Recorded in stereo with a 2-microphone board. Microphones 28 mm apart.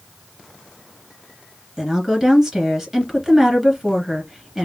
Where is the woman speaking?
15° right (ahead or behind), 1.5 m.